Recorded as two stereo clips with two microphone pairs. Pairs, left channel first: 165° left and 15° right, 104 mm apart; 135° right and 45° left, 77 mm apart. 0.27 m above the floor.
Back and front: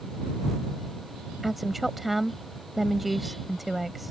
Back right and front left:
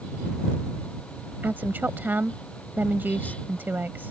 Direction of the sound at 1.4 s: 70° left.